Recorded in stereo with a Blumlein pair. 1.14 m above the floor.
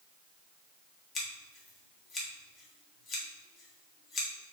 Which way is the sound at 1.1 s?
25° left.